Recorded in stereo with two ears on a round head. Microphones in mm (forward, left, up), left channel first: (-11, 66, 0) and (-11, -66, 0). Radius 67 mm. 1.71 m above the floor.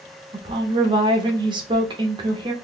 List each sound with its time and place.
0.3 s a woman speaking: 30° right (ahead or behind), 0.8 m